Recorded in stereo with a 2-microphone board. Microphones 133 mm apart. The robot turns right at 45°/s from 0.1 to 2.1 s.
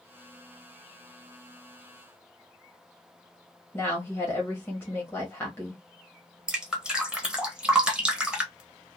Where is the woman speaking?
15° left (ahead or behind), 0.9 m.